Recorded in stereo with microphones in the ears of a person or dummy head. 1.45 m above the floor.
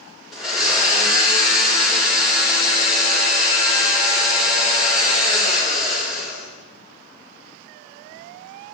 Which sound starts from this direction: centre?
A blender, at 0.3 s.